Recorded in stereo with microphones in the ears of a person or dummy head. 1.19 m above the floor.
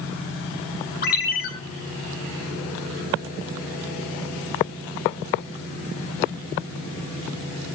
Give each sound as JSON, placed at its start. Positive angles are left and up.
{"t": 1.0, "sound": "a ringtone", "side_deg": 55, "distance_m": 3.5}